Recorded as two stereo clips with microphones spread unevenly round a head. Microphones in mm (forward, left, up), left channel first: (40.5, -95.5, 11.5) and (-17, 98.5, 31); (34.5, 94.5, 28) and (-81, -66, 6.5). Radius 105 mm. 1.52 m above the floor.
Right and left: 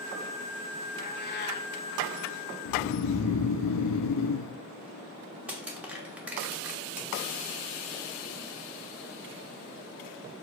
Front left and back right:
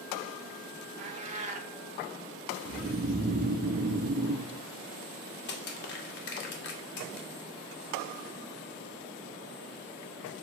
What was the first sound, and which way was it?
A cat meowing, 75° right.